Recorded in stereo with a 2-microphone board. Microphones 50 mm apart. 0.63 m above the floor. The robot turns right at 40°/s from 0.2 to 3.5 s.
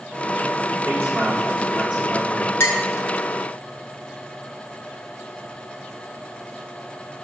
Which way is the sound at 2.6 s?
60° left (ahead or behind).